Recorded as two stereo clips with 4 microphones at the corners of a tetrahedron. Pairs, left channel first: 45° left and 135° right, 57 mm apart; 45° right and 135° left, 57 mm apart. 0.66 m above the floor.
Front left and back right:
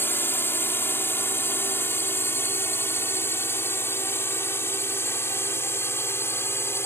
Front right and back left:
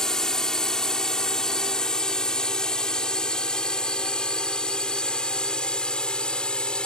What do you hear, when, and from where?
0.0 s a drone: 30° left; by 6.9 s 25° left